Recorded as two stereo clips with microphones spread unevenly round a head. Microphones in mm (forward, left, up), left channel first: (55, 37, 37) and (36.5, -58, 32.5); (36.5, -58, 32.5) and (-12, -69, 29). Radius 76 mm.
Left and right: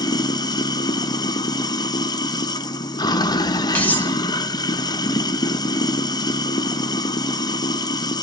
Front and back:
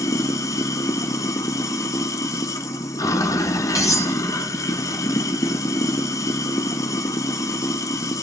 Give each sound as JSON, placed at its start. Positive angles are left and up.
{"t": 0.0, "sound": "running water", "azimuth_deg": 30, "distance_m": 0.9}
{"t": 3.8, "sound": "cutlery clinking", "azimuth_deg": 5, "distance_m": 3.0}